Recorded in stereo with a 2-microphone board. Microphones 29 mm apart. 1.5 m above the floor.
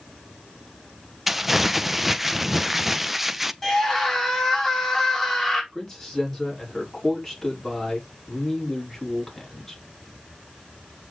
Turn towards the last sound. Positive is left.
turn(degrees=15)  # may be behind; listen again after turning